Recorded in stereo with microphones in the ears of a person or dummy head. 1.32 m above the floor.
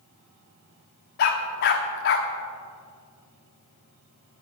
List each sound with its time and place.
1.2 s a dog barking: 45° left (ahead or behind), 1.2 m